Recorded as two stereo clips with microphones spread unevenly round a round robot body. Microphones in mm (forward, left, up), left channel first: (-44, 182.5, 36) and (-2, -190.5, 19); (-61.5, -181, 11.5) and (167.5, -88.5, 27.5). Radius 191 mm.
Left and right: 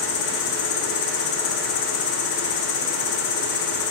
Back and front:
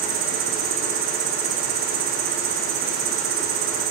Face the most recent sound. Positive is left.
turn(degrees=50)